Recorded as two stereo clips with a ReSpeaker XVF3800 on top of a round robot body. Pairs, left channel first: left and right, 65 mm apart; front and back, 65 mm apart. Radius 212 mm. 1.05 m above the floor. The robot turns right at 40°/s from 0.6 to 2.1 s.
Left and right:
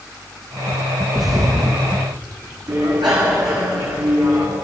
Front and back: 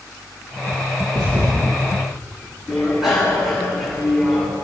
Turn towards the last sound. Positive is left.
turn(degrees=-95)